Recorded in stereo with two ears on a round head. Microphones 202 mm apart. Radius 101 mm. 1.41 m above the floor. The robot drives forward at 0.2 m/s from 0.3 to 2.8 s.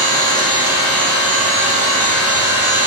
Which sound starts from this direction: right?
An engine running, at 0.0 s.